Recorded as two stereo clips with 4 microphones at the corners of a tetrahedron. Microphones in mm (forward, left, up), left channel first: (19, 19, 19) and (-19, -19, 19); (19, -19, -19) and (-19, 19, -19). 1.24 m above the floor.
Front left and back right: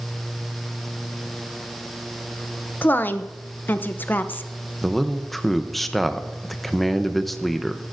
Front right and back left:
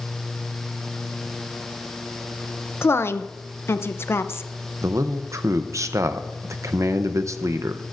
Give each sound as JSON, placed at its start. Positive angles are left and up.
{"t": 2.8, "sound": "a woman speaking", "azimuth_deg": -5, "distance_m": 0.5}
{"t": 4.8, "sound": "a man speaking", "azimuth_deg": 135, "distance_m": 0.6}